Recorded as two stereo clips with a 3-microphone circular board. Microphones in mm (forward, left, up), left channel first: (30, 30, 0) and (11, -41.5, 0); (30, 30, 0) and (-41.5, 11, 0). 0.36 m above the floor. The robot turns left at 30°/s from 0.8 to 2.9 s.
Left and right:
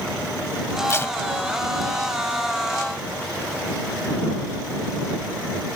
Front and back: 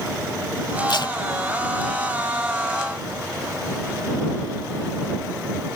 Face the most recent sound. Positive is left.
turn(degrees=-40)